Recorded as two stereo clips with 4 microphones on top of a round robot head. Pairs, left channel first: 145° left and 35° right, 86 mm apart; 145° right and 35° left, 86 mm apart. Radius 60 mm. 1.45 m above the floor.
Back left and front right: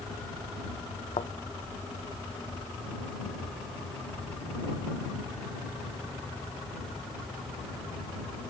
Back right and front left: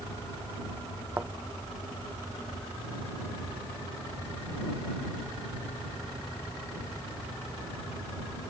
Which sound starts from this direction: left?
A thud, at 1.2 s.